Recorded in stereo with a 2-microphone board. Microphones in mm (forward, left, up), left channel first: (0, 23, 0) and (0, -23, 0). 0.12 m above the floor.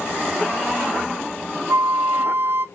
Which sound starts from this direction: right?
A flute, at 1.7 s.